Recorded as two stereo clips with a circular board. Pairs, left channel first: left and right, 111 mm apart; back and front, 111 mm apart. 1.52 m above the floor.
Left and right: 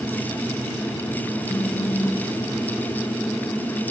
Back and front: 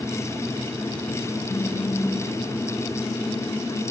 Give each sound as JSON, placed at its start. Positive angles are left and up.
{"t": 1.5, "sound": "a phone buzzing", "azimuth_deg": 140, "distance_m": 1.4}